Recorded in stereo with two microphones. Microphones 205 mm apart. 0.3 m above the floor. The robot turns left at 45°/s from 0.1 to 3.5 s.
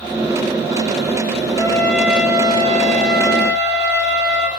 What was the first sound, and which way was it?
A trumpet, 25° left.